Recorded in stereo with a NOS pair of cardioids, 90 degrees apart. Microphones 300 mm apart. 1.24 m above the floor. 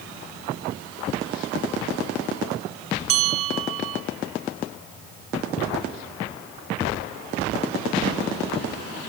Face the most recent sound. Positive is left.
turn(degrees=-50)